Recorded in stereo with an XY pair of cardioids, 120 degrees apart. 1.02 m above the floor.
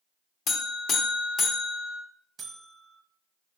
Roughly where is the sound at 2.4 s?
Ahead right.